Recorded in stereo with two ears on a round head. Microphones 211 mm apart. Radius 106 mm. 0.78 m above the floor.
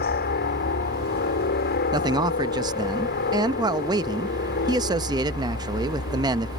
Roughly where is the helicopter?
Left.